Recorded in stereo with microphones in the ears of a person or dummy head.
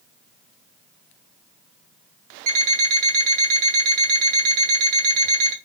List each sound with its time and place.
2.5 s an alarm clock: 50° right (ahead or behind), 1.5 m